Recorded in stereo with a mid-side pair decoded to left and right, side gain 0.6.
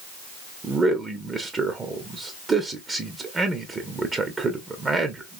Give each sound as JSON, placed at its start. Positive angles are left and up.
{"t": 0.6, "sound": "a man speaking", "azimuth_deg": -25, "distance_m": 0.8}